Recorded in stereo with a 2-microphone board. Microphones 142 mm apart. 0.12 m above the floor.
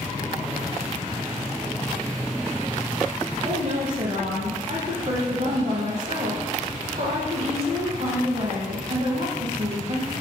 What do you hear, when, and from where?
3.5 s a woman speaking: 50° right (ahead or behind), 4.5 m